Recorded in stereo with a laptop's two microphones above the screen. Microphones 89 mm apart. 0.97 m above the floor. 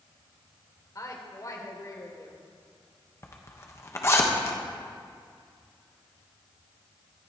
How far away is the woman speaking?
About 3 m.